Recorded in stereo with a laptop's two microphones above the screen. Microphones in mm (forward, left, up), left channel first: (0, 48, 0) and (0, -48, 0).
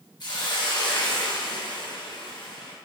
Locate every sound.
0.2 s a hiss: 50° left (ahead or behind), 0.7 m